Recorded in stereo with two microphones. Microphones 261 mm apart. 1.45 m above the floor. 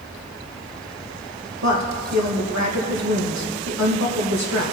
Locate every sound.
1.6 s a woman speaking: 80° right, 1.5 m